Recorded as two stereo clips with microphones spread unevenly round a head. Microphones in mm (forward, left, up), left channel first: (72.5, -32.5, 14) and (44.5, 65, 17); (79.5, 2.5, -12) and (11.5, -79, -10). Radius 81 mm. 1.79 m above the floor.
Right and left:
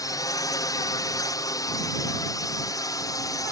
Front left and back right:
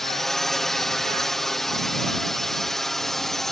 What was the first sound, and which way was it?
A drone, 35° right.